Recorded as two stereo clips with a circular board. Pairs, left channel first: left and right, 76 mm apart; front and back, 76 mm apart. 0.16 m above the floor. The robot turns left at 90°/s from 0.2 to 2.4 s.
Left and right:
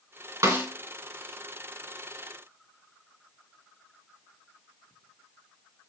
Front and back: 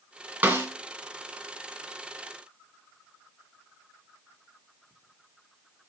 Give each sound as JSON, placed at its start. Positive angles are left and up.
{"t": 0.4, "sound": "a snare drum", "azimuth_deg": -125, "distance_m": 2.0}